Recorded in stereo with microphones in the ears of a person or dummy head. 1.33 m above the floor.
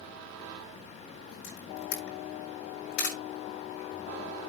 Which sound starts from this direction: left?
A camera shutter, at 1.4 s.